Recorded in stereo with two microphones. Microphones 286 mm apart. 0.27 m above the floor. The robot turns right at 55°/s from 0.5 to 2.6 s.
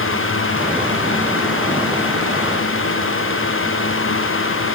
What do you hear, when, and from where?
Only background noise.